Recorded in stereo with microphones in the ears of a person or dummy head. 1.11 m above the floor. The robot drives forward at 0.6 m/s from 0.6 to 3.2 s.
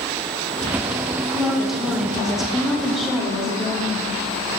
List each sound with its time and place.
1.3 s a woman speaking: centre (ahead or behind), 0.7 m